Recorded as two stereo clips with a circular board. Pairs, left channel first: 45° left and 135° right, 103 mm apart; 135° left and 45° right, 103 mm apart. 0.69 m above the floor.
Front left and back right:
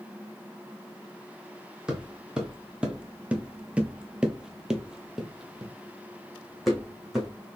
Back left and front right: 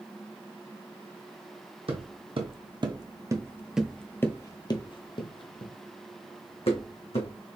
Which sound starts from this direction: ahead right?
Footsteps, at 1.9 s.